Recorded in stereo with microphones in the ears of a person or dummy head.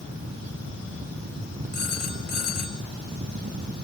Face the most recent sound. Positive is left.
turn(degrees=50)  # may be behind; listen again after turning